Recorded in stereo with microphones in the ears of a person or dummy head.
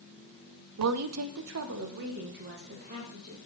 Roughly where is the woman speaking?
Right.